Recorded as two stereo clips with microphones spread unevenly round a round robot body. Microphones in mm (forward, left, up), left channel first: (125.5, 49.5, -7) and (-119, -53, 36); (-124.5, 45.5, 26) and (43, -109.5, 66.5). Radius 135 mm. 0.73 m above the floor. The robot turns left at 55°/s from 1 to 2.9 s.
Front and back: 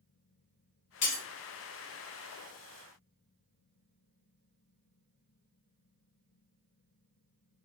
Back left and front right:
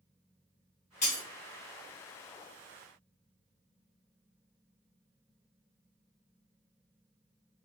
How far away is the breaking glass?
About 1.1 m.